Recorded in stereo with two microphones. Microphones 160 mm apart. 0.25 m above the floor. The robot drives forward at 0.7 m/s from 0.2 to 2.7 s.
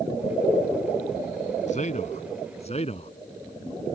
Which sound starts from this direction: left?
A man speaking, at 1.7 s.